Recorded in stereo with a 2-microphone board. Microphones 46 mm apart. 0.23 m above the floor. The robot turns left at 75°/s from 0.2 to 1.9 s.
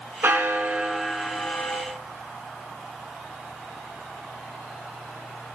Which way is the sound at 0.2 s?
115° right.